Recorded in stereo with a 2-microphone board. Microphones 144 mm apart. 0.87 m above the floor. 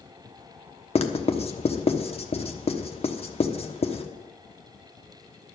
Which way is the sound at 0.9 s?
40° left (ahead or behind).